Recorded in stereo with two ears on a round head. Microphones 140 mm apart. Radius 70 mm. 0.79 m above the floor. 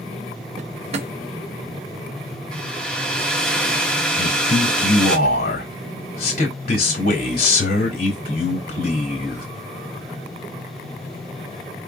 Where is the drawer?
40° right (ahead or behind), 0.6 m.